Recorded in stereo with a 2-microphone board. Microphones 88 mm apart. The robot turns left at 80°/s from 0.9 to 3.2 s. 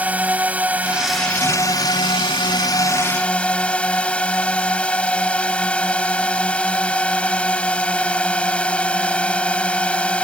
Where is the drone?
165° right; by 10.2 s 15° left.